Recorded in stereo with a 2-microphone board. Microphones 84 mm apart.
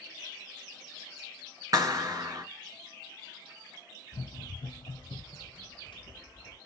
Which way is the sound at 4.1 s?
65° left (ahead or behind).